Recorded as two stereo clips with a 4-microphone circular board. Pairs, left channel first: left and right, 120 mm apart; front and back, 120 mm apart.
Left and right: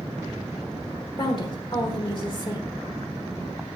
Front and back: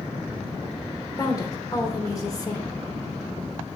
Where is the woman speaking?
55° left, 1.3 m.